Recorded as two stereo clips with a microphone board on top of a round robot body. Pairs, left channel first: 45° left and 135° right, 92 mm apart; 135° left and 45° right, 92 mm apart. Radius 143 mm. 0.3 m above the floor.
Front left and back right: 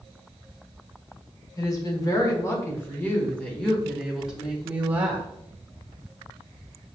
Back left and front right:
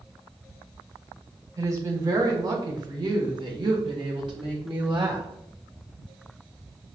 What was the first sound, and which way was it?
A woman speaking, 5° left.